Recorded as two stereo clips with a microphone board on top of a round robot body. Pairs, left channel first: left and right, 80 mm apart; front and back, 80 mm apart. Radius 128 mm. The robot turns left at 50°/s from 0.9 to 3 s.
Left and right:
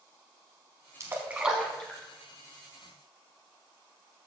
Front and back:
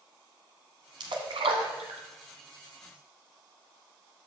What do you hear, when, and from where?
1.0 s a splash: 145° right, 0.9 m; by 2.0 s 165° left, 0.9 m